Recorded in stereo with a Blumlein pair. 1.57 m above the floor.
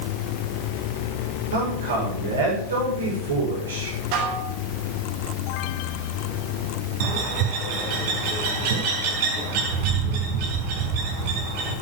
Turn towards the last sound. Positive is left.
turn(degrees=-50)